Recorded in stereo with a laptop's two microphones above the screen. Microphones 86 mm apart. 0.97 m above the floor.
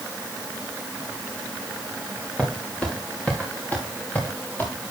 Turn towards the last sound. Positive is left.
turn(degrees=25)  # may be behind; listen again after turning